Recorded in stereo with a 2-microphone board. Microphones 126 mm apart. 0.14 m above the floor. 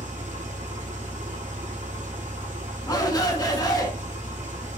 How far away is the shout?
About 1.2 m.